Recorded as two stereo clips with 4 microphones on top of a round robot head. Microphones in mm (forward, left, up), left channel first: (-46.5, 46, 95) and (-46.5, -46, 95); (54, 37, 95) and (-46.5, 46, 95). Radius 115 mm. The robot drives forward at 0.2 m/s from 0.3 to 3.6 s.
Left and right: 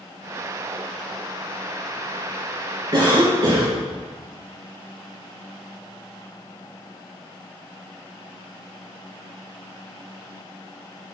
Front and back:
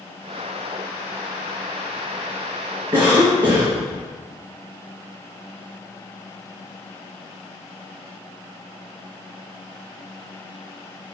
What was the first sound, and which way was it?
A cough, 135° right.